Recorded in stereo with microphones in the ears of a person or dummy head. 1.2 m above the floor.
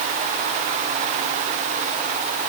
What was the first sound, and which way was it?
Only background noise.